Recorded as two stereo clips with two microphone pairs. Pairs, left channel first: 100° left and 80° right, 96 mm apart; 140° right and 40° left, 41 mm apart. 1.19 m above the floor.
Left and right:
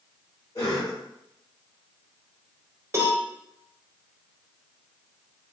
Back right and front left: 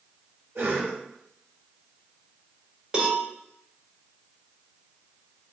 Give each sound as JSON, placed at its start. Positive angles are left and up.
{"t": 0.6, "sound": "a cough", "azimuth_deg": 60, "distance_m": 1.5}
{"t": 2.9, "sound": "a cowbell", "azimuth_deg": -20, "distance_m": 0.8}